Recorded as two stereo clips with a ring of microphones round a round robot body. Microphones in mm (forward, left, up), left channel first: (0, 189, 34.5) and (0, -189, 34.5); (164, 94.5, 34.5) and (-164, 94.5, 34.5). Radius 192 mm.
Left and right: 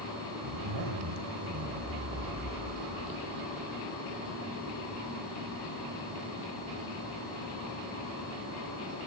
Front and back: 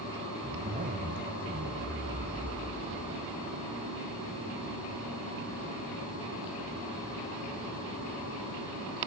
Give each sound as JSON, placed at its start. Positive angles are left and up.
{"t": 0.4, "sound": "a zipper", "azimuth_deg": -115, "distance_m": 2.0}